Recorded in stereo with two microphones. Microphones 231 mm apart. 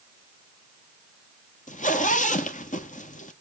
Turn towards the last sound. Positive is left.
turn(degrees=35)  # may be behind; listen again after turning